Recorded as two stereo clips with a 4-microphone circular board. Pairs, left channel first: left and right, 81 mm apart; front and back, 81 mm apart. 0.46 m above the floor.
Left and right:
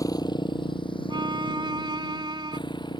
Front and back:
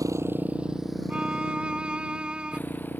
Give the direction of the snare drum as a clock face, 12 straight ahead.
I don't hear a snare drum.